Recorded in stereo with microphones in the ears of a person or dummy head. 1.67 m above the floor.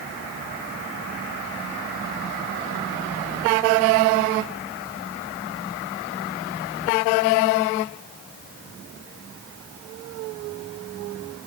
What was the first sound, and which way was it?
Only background noise.